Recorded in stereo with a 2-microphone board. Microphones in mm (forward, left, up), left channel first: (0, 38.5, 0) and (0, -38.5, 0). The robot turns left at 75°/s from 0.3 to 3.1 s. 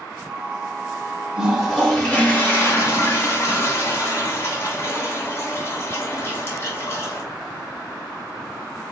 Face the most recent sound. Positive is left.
turn(degrees=75)